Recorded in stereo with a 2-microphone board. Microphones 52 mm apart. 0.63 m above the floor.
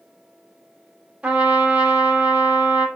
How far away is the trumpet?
About 0.7 m.